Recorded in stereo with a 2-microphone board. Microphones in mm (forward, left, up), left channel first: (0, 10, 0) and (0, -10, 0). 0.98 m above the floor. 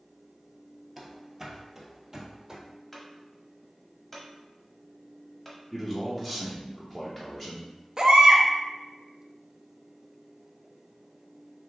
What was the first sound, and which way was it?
Running footsteps, 10° right (ahead or behind).